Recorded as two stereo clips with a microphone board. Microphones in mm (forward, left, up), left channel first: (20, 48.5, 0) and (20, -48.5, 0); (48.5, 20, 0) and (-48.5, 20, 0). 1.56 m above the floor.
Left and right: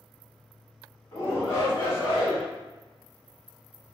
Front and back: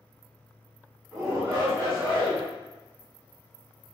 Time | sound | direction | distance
1.1 | a shout | 120° left | 1.5 m